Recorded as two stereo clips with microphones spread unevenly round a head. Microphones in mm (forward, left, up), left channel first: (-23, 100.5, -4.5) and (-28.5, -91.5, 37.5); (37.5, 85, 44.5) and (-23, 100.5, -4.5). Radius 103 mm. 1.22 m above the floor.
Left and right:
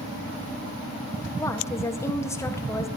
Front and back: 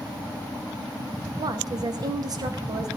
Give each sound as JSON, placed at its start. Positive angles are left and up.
{"t": 1.4, "sound": "a woman speaking", "azimuth_deg": 165, "distance_m": 1.4}